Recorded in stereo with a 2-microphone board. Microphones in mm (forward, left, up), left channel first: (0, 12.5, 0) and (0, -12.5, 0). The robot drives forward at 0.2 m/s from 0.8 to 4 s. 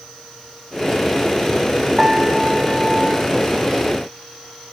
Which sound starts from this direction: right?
A piano, at 2.0 s.